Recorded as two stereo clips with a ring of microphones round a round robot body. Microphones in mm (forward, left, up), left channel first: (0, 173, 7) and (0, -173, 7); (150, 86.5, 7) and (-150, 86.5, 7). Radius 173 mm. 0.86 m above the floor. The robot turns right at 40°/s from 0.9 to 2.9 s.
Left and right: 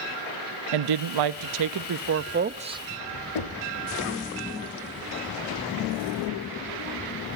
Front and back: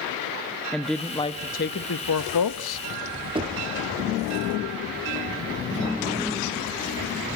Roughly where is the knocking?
Left.